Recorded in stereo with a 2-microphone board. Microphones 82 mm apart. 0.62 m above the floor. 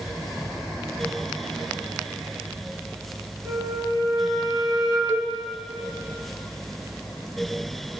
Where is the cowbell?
25° right (ahead or behind), 0.7 m.